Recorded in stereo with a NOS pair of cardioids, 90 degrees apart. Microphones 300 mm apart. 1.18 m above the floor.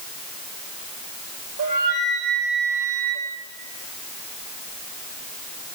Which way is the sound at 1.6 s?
70° right.